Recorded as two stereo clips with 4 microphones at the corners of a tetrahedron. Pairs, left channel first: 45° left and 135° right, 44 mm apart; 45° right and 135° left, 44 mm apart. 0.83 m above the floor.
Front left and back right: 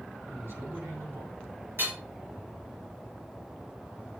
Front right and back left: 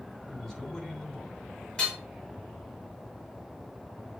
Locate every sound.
0.3 s a man speaking: 125° right, 3 m
1.8 s hammering: 115° right, 3 m